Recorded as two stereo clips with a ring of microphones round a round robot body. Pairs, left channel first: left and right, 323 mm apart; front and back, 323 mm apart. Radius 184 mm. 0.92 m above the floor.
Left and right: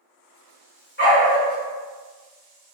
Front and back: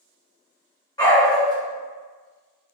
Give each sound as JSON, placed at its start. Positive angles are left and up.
{"t": 1.0, "sound": "a dog barking", "azimuth_deg": 70, "distance_m": 0.7}